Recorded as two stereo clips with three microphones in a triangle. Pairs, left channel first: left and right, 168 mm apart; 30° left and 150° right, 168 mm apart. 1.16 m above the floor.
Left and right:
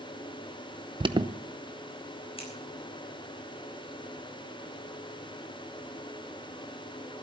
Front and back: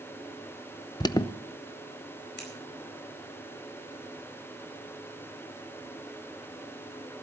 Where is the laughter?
No laughter in this recording.